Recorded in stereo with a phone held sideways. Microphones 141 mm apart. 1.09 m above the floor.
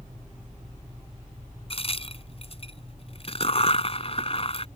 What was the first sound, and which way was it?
A crack, 45° left (ahead or behind).